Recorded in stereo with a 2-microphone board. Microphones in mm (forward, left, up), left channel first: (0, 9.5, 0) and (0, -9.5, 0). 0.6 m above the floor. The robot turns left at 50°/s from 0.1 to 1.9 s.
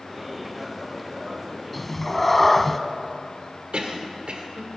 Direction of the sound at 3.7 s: 60° right (ahead or behind).